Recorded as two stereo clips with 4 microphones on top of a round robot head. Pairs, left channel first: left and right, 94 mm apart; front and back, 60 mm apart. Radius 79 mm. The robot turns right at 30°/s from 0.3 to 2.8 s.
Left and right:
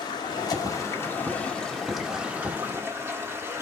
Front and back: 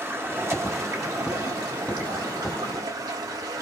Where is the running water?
130° left, 1.6 m; by 3.6 s 155° right, 1.6 m.